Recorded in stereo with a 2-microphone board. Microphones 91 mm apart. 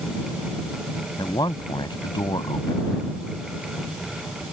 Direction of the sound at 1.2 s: 55° left (ahead or behind).